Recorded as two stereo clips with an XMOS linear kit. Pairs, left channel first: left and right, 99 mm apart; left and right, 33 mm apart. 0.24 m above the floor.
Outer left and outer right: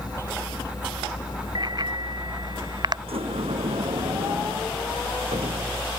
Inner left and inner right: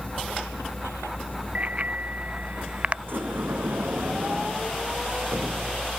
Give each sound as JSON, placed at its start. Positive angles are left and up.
{"t": 0.0, "sound": "a vehicle", "side_deg": 45}
{"t": 1.6, "sound": "a bicycle bell", "side_deg": -45}
{"t": 3.1, "sound": "a sliding door", "side_deg": -80}